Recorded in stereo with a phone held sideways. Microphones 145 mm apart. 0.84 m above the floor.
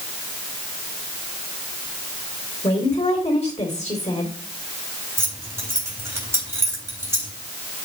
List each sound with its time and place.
2.6 s a woman speaking: 45° left (ahead or behind), 2.5 m
5.2 s keys jangling: 20° right (ahead or behind), 3.5 m